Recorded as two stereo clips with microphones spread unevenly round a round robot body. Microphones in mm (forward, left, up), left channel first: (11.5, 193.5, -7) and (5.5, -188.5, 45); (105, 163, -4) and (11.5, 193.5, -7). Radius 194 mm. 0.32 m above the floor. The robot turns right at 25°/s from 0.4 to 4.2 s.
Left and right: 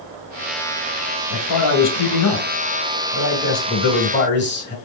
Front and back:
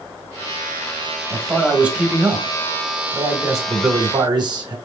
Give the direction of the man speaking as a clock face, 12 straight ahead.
9 o'clock.